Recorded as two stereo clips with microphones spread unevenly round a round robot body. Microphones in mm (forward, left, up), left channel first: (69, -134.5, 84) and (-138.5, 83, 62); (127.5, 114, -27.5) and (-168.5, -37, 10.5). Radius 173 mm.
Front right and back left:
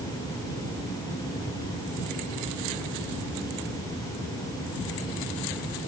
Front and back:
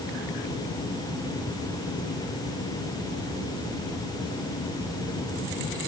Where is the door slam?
No door slam in this recording.